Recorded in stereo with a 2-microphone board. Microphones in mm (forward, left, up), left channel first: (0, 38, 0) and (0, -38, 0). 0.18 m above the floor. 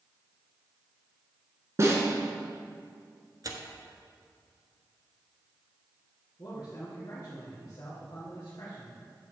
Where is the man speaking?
60° left (ahead or behind), 2.5 m.